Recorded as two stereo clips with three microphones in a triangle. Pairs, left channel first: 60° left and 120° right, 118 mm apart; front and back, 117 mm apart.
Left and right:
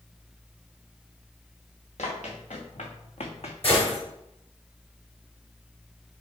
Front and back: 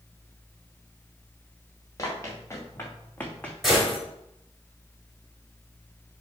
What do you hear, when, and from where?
2.0 s running footsteps: 60° left, 2.5 m; by 3.5 s 80° left, 1.3 m
3.6 s a gunshot: 90° left, 4 m